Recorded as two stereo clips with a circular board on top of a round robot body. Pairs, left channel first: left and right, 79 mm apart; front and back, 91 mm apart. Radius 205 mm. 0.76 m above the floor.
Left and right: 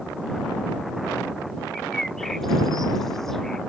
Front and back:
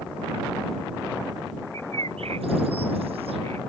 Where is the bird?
175° left.